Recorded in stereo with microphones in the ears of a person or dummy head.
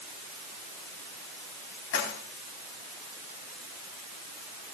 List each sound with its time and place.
1.9 s keys jangling: 75° left (ahead or behind), 4 m